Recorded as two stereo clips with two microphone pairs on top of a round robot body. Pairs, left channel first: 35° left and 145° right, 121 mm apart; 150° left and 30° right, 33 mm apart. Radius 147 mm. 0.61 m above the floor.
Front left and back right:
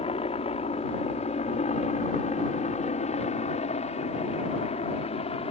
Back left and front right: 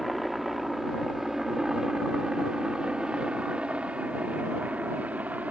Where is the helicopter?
65° left; by 5.5 s straight ahead.